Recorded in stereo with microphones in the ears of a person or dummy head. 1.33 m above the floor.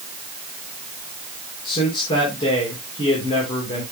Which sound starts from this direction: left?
A man speaking, at 1.6 s.